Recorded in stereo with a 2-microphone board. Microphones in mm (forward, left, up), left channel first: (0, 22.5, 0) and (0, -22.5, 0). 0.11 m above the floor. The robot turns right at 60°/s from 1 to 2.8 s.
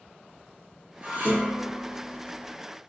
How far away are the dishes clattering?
About 1.2 m.